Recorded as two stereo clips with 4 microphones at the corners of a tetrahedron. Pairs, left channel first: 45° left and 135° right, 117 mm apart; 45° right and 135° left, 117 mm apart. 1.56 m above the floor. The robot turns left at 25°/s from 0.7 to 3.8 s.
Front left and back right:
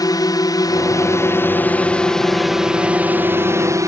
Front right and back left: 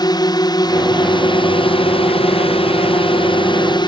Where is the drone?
Straight ahead; by 3.9 s 80° right.